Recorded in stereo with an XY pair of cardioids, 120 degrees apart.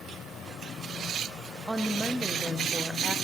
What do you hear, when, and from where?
1.7 s a woman speaking: 10° right, 0.7 m